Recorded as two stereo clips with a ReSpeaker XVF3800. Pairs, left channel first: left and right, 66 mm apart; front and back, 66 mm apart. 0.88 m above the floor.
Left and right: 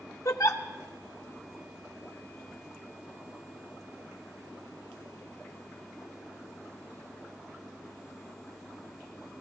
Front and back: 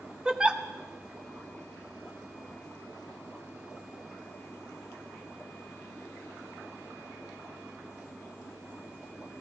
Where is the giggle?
105° left, 0.7 m.